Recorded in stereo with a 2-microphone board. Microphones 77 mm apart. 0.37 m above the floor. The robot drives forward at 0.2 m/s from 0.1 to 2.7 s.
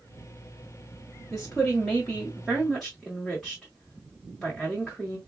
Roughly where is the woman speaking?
Centre.